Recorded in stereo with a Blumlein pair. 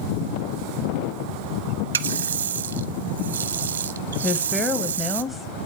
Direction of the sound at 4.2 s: 10° left.